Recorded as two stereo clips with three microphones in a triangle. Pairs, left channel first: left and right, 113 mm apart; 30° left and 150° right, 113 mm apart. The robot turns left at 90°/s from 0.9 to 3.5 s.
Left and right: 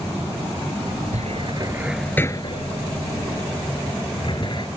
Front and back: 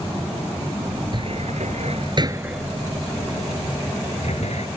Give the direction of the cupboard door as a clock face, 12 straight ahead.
3 o'clock.